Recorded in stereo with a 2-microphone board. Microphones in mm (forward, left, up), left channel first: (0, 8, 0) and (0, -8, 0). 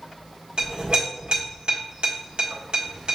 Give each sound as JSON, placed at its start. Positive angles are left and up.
{"t": 0.6, "sound": "a clink", "side_deg": -75, "distance_m": 1.5}